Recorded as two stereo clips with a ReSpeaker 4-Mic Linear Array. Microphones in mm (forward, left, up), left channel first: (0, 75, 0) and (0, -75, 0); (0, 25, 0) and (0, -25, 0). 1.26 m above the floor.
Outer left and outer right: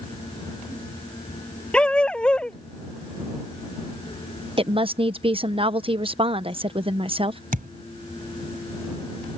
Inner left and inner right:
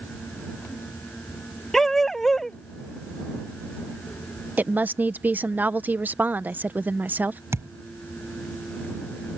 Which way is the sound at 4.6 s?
40° right (ahead or behind).